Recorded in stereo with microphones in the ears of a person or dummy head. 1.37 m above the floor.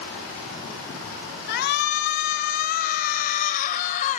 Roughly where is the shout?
Left.